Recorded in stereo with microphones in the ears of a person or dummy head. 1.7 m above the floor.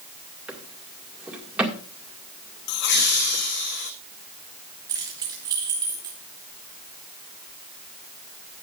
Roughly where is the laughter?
Left.